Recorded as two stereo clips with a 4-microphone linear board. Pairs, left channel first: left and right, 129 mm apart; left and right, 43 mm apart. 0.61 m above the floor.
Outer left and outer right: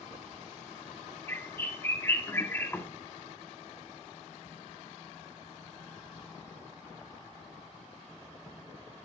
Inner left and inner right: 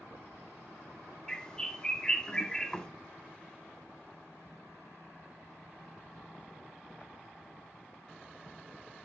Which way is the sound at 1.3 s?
20° left (ahead or behind).